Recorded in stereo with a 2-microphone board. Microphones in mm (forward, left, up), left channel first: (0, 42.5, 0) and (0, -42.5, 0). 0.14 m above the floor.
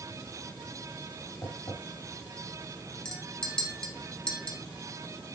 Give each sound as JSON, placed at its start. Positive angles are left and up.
{"t": 1.4, "sound": "tapping", "side_deg": 50, "distance_m": 3.0}
{"t": 3.0, "sound": "a clink", "side_deg": 10, "distance_m": 1.4}